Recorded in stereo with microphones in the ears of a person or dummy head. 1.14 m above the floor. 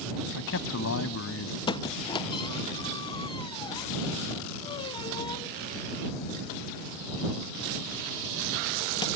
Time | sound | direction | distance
0.3 | a man speaking | 60° left (ahead or behind) | ?
1.7 | a squeak | 15° left (ahead or behind) | ?